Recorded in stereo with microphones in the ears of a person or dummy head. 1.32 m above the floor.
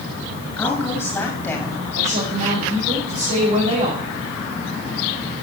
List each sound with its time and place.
0.6 s a woman speaking: 15° left (ahead or behind), 8 m
1.9 s a woman speaking: 45° right (ahead or behind), 5.5 m